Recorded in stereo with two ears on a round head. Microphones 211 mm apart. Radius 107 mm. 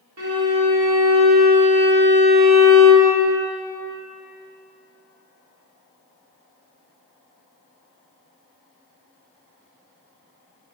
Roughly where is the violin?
Right.